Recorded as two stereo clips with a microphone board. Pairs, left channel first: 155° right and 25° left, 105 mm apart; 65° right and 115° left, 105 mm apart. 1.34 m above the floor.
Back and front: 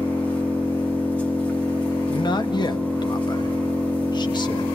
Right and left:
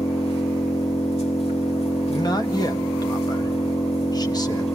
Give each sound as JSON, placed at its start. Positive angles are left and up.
{"t": 0.0, "sound": "an engine running", "azimuth_deg": -80, "distance_m": 2.5}
{"t": 2.1, "sound": "a man speaking", "azimuth_deg": -115, "distance_m": 1.2}